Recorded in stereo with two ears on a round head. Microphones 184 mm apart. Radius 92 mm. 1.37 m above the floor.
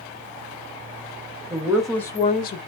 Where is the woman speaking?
15° right (ahead or behind), 0.9 m; by 2.6 s 50° left (ahead or behind), 0.6 m.